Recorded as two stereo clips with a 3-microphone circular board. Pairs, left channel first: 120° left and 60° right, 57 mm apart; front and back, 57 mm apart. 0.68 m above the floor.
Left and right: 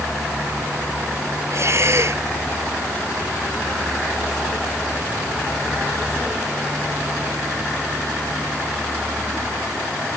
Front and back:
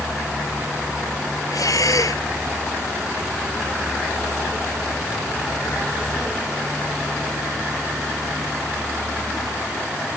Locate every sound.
1.5 s breathing: 20° right